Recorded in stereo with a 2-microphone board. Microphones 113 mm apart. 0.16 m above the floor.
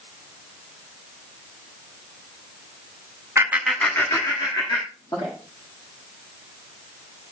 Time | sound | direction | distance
3.4 | laughter | 25° right (ahead or behind) | 1.1 m